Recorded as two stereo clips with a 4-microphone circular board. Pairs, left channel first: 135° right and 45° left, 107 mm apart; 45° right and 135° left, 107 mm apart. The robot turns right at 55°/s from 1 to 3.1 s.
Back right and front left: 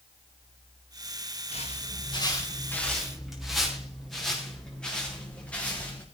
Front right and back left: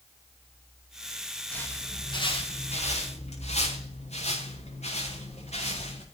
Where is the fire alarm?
No fire alarm in this recording.